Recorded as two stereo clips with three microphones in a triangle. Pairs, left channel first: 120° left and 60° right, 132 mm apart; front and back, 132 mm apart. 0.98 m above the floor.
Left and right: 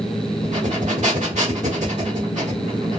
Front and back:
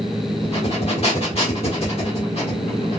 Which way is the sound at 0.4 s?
40° right.